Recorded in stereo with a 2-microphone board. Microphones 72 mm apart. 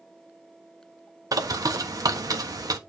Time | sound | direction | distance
1.3 | a bird | 55° right (ahead or behind) | 1.3 m